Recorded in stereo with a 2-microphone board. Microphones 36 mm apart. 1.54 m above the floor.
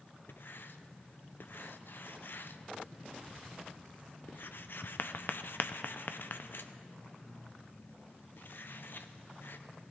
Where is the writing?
70° left (ahead or behind), 0.6 m.